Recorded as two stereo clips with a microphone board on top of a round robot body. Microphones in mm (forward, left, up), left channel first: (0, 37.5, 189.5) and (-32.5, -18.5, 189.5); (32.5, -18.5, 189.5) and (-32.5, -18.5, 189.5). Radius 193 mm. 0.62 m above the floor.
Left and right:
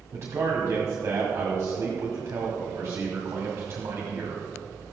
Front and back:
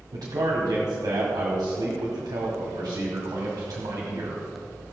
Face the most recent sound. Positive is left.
turn(degrees=-170)